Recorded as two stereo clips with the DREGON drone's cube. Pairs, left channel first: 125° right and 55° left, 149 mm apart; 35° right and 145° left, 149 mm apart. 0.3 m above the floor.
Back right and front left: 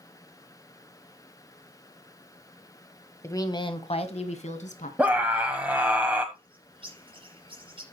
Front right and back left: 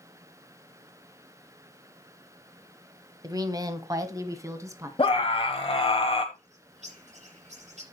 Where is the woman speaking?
175° right, 1.1 m; by 4.9 s 145° right, 2.5 m.